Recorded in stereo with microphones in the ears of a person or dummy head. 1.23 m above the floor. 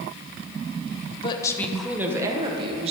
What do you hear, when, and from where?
1.2 s a woman speaking: 30° left (ahead or behind), 0.8 m; by 2.9 s 35° right (ahead or behind), 1.3 m